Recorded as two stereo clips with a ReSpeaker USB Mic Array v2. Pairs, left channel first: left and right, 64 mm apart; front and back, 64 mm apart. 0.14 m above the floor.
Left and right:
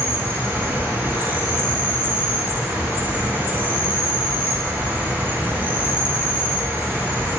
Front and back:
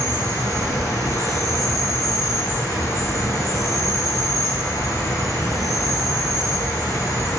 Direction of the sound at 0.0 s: 25° right.